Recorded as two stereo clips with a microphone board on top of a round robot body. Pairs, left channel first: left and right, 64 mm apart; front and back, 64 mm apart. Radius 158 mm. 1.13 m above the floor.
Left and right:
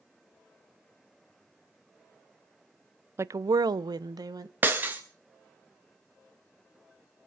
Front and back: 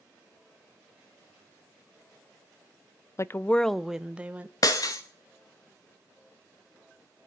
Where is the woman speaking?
40° right, 0.5 m; by 4.5 s 110° right, 1.2 m.